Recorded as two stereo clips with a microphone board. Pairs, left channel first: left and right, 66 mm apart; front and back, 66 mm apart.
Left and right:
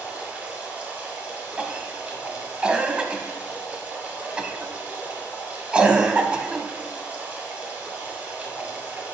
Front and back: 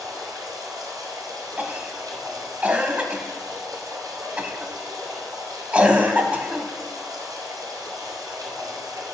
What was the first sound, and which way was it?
Running water, 155° right.